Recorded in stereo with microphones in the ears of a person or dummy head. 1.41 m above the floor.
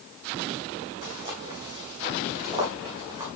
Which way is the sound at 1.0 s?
40° right (ahead or behind).